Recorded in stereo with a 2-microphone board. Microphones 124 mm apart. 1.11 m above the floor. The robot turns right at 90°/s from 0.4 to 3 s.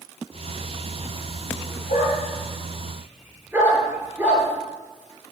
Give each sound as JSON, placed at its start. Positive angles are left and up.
{"t": 1.9, "sound": "a dog barking", "side_deg": 80, "distance_m": 6.5}